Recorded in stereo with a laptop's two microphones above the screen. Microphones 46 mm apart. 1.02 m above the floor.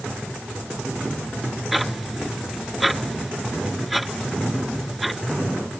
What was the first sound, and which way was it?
Ticking, centre (ahead or behind).